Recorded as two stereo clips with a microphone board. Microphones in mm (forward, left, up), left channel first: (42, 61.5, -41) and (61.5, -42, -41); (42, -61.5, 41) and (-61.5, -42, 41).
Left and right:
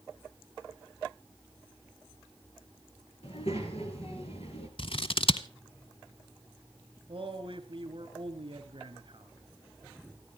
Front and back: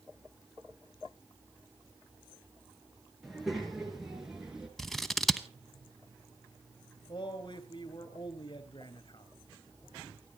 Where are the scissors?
80° left, 0.8 m.